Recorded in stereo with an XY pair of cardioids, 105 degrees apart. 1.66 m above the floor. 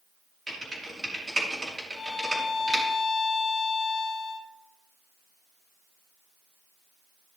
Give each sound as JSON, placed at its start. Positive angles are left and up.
{"t": 0.5, "sound": "typing on a keyboard", "azimuth_deg": -25, "distance_m": 4.5}
{"t": 1.9, "sound": "a violin", "azimuth_deg": 45, "distance_m": 2.5}